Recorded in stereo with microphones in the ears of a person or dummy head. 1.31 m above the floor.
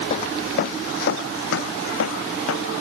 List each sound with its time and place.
0.1 s footsteps: 35° left (ahead or behind); by 2.8 s 75° left (ahead or behind)